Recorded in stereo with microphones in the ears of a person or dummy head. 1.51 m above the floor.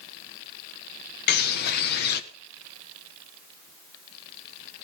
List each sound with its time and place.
1.3 s a bird: 55° left (ahead or behind), 1.7 m